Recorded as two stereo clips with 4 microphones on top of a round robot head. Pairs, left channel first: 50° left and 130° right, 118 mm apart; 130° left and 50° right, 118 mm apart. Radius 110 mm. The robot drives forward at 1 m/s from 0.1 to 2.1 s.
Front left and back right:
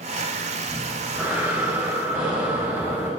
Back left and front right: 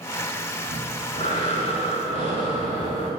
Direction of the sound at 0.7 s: 150° left.